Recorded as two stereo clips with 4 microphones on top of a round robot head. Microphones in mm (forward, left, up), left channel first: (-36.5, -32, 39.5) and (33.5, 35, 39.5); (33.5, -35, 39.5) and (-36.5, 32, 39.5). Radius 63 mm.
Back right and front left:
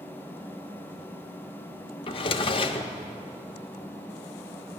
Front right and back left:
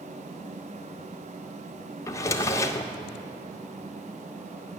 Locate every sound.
2.1 s a drawer: 105° right, 1.0 m